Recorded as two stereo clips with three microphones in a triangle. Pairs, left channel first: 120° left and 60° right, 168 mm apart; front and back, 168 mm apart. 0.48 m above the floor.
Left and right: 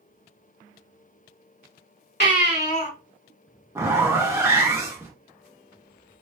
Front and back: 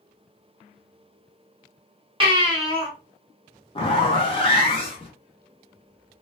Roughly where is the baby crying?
Behind left.